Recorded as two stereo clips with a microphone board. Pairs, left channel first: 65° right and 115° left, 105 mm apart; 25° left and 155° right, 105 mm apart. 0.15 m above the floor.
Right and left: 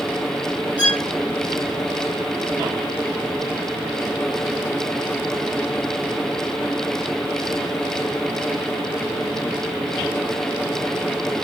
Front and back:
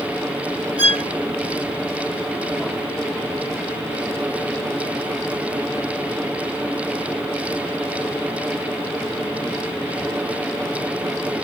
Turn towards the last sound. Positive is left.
turn(degrees=150)